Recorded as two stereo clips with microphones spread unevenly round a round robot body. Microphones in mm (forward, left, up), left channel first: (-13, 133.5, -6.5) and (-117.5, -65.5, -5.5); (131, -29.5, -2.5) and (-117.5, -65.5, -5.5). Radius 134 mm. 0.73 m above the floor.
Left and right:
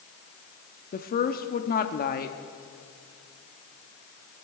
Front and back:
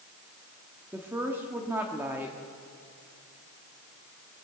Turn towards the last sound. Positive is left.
turn(degrees=105)